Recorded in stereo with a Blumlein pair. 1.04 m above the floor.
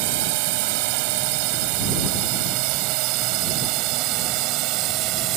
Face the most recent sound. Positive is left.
turn(degrees=-40)